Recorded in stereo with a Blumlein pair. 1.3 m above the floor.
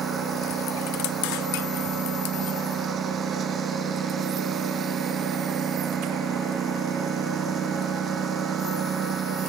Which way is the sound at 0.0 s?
25° right.